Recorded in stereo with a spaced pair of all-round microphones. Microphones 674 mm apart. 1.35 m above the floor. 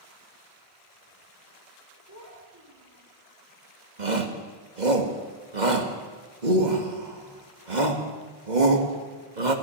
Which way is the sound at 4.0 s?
80° right.